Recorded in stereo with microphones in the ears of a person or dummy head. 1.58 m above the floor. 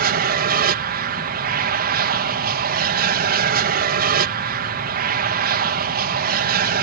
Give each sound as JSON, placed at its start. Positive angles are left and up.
{"t": 0.0, "sound": "an aircraft", "side_deg": -50}